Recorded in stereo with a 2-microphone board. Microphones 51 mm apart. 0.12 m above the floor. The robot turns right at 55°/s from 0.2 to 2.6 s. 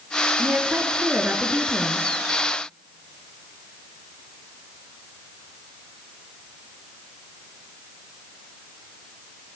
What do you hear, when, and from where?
0.4 s a woman speaking: 100° right, 1.5 m; by 2.1 s 10° right, 1.5 m